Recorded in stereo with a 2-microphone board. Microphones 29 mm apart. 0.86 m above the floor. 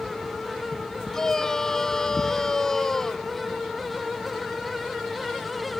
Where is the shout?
15° left (ahead or behind).